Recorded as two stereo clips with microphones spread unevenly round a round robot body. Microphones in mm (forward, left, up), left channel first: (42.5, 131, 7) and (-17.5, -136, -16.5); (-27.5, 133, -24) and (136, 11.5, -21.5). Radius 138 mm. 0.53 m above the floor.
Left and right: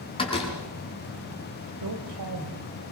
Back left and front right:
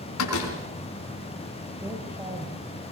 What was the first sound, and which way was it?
A door slam, 150° left.